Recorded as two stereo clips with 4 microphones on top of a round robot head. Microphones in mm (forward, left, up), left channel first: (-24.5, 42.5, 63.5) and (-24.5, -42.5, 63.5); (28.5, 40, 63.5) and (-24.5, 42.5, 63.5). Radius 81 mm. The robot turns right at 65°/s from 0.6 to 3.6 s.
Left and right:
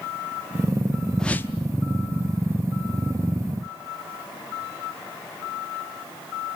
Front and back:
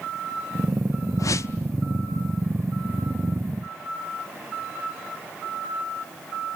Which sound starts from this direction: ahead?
A whoosh, at 1.2 s.